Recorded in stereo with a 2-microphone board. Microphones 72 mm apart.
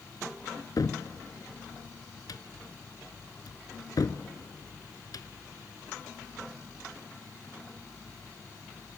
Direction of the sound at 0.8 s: 70° left (ahead or behind).